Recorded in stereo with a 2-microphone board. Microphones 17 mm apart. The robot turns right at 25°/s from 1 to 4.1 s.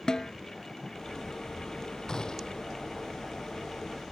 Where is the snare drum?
45° left (ahead or behind).